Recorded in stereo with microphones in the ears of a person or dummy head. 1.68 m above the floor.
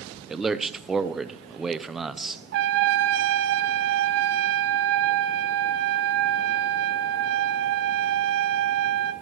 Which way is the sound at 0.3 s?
5° right (ahead or behind).